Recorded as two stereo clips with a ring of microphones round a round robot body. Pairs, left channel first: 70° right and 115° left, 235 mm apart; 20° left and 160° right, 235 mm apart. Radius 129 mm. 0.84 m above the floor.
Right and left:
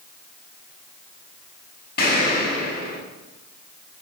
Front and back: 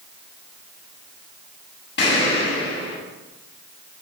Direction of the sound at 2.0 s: 20° right.